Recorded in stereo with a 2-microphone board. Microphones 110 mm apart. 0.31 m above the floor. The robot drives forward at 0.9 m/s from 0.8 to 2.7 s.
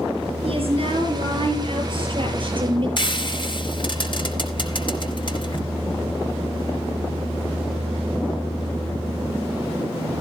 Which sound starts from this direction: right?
A woman speaking, at 0.5 s.